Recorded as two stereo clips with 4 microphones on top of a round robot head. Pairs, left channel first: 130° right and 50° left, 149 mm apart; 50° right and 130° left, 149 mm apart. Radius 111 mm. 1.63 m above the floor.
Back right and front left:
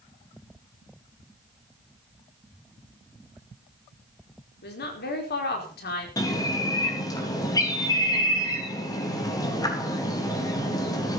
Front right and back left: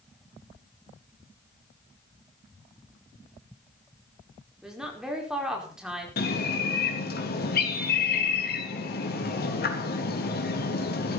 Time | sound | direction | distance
4.6 | a woman speaking | 145° right | 5 m
6.2 | a bird | 65° right | 3.5 m